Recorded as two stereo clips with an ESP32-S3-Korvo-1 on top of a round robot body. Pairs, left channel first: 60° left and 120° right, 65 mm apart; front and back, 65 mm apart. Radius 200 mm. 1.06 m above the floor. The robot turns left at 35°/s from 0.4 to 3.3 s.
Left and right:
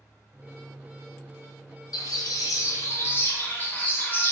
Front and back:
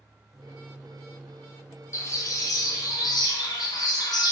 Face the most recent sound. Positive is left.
turn(degrees=-5)